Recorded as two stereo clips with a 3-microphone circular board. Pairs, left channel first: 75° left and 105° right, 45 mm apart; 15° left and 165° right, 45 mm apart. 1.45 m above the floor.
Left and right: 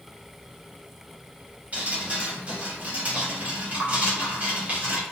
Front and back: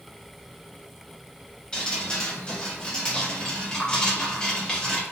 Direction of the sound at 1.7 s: 55° right.